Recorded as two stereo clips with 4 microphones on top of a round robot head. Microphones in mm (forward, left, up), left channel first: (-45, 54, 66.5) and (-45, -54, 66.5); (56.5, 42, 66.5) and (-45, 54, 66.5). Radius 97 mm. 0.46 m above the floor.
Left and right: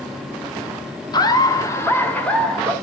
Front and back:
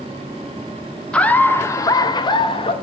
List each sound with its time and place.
1.1 s laughter: 70° left, 1.0 m; by 2.7 s 5° left, 1.2 m